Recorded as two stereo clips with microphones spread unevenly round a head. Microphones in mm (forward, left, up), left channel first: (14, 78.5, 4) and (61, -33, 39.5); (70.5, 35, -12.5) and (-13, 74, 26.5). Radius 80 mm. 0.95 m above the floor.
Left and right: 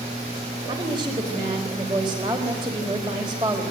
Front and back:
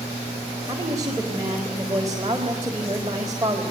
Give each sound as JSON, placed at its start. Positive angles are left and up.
{"t": 0.7, "sound": "a woman speaking", "azimuth_deg": -135, "distance_m": 4.0}